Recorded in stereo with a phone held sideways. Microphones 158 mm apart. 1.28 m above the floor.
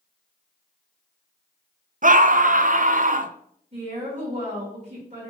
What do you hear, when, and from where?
2.0 s a scream: 55° right (ahead or behind), 0.7 m
3.7 s a woman speaking: 45° right (ahead or behind), 3.5 m